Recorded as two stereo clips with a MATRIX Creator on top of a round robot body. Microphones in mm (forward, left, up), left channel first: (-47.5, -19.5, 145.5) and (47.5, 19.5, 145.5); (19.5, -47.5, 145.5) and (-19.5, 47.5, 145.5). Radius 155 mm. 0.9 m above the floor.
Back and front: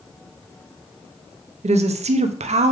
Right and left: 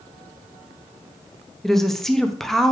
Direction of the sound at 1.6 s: 20° left.